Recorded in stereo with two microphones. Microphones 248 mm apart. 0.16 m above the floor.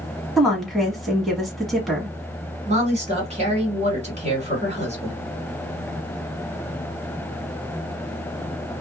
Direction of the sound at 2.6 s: 25° right (ahead or behind).